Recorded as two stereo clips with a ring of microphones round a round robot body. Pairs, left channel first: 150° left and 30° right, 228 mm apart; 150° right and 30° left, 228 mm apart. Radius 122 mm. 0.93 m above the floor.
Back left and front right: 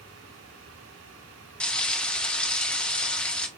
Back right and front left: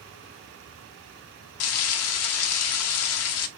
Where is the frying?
125° right, 0.5 m.